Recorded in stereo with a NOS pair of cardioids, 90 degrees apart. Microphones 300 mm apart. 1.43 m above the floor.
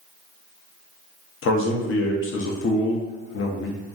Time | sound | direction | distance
1.4 | a man speaking | 45° left | 0.6 m